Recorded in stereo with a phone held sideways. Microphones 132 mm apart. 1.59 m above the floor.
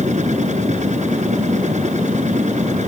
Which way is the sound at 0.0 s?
65° right (ahead or behind).